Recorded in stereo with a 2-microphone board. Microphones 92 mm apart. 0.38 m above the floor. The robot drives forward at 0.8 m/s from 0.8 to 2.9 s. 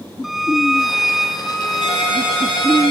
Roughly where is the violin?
Centre.